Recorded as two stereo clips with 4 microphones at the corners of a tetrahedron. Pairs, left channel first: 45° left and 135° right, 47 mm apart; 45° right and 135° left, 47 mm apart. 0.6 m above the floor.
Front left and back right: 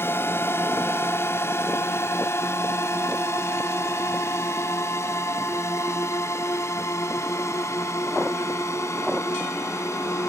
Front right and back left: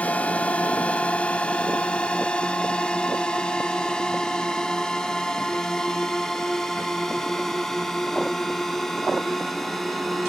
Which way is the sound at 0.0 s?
15° left.